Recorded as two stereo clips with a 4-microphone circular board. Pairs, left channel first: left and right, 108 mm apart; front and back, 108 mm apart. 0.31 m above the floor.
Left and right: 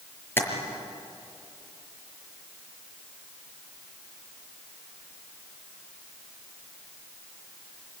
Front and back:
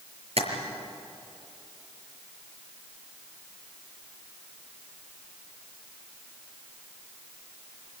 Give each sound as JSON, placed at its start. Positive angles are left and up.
{"t": 0.4, "sound": "tapping", "azimuth_deg": 160, "distance_m": 5.5}